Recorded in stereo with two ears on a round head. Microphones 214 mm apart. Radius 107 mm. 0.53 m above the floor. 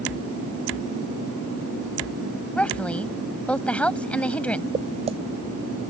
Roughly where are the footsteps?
Right.